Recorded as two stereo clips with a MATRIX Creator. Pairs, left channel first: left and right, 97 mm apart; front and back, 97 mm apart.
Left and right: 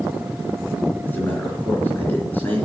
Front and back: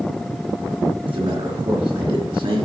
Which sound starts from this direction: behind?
A man speaking, at 1.1 s.